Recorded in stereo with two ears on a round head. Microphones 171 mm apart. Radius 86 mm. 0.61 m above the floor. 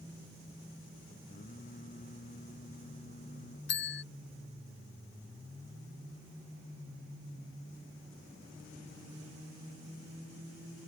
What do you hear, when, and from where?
1.3 s singing: 40° left (ahead or behind)
3.7 s a bell: 60° left (ahead or behind)